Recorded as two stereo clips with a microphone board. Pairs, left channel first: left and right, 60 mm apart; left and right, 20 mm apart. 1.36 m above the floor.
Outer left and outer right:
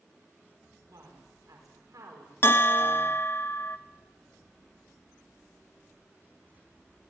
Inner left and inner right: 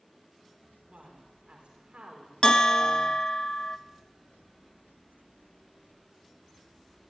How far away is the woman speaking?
About 4.5 m.